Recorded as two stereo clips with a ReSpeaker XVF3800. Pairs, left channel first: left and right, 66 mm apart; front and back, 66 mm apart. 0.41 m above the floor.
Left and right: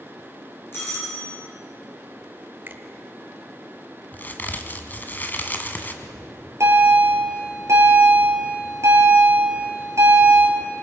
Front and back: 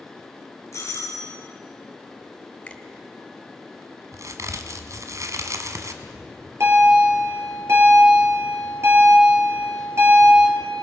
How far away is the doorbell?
About 5.5 m.